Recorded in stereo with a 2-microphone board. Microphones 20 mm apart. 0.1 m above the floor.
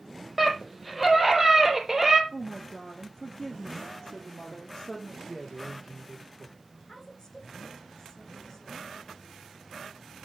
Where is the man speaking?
15° left (ahead or behind), 6.5 m.